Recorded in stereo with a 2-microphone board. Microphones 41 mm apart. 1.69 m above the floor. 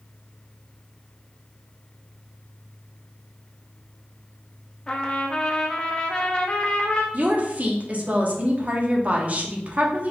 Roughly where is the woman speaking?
Right.